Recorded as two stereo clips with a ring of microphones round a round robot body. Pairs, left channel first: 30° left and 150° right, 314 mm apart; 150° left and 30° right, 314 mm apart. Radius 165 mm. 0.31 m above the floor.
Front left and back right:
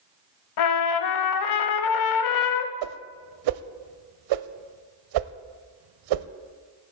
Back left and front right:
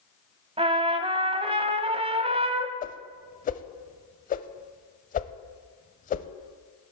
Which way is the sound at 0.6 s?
45° left.